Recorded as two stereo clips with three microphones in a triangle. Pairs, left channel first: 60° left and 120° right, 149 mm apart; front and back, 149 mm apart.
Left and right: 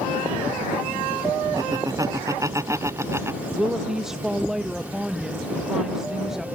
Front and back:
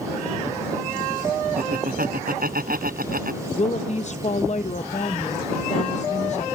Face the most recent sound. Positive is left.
turn(degrees=-35)